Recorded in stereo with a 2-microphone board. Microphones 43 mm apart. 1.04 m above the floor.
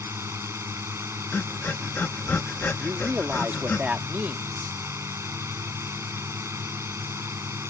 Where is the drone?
85° right.